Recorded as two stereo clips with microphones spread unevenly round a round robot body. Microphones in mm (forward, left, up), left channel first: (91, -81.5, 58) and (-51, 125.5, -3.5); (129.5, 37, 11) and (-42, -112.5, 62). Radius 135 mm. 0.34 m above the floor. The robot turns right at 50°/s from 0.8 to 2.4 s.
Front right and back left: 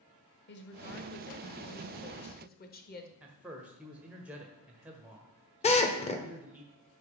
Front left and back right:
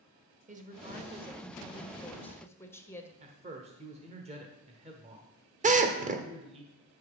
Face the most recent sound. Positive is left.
turn(degrees=-115)